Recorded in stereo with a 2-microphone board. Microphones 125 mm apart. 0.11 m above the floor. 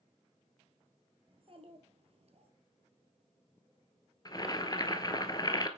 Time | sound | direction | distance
1.3 | a child speaking | 50° right (ahead or behind) | 1.7 m
4.2 | boiling | 35° left (ahead or behind) | 0.8 m